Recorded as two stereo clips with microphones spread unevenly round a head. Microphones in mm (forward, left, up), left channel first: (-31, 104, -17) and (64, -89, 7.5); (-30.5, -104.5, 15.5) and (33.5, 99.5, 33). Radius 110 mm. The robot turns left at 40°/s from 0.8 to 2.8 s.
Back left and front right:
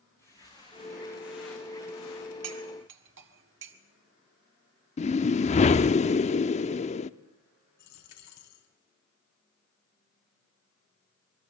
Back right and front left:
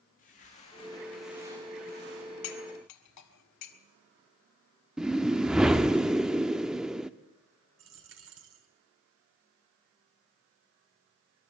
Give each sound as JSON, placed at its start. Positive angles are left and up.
{"t": 0.2, "sound": "footsteps", "azimuth_deg": -160, "distance_m": 5.0}
{"t": 2.4, "sound": "cutlery clinking", "azimuth_deg": -85, "distance_m": 1.7}
{"t": 5.0, "sound": "a whoosh", "azimuth_deg": 145, "distance_m": 0.6}
{"t": 7.8, "sound": "a dropped coin", "azimuth_deg": 105, "distance_m": 3.0}